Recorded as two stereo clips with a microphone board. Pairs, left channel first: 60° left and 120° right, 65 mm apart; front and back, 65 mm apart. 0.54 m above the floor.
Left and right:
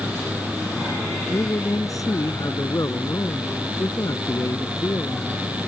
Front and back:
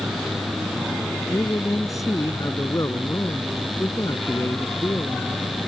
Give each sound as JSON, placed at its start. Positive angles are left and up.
{"t": 1.3, "sound": "a man speaking", "azimuth_deg": 30}